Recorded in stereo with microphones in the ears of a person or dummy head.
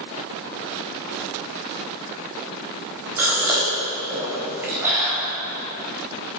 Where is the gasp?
15° right (ahead or behind), 3.5 m.